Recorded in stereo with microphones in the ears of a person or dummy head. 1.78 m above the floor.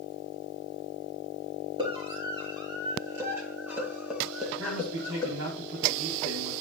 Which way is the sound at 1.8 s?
30° right (ahead or behind).